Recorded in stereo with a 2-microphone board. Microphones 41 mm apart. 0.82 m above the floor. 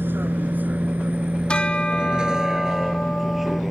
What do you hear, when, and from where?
0.0 s a vehicle: 55° right (ahead or behind); by 3.7 s centre (ahead or behind)
1.5 s a bell: 25° left (ahead or behind)